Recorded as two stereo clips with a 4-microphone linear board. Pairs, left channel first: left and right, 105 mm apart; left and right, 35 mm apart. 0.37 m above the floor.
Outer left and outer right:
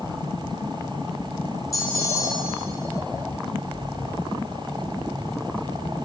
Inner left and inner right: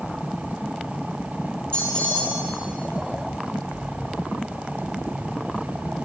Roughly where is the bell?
Left.